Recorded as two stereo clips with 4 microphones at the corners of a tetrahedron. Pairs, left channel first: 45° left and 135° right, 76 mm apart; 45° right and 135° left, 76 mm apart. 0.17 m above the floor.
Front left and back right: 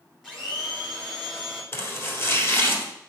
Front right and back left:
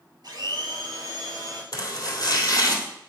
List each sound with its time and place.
0.2 s a blender: 130° left, 2 m
1.7 s chopping: 10° right, 1.7 m